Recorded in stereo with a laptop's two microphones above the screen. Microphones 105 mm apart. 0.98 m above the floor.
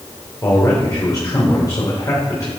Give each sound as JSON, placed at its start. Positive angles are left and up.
{"t": 0.4, "sound": "a man speaking", "side_deg": 35, "distance_m": 4.0}